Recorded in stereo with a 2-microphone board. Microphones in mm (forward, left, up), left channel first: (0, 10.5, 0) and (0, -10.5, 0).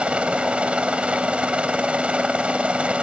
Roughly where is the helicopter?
Right.